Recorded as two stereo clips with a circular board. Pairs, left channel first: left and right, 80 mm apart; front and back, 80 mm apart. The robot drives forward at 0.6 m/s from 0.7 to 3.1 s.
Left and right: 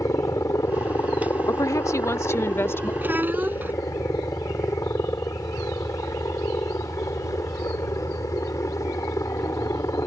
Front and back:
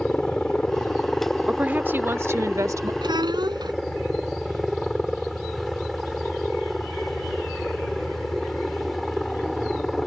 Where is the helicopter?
80° left; by 10.1 s 90° left.